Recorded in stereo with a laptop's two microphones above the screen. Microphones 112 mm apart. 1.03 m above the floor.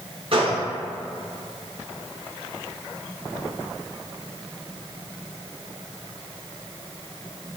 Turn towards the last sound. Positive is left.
turn(degrees=-55)  # may be behind; listen again after turning